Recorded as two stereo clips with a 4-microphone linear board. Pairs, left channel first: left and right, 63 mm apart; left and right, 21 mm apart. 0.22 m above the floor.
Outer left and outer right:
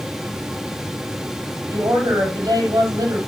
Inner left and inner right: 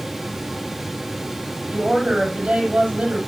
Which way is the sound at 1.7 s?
75° right (ahead or behind).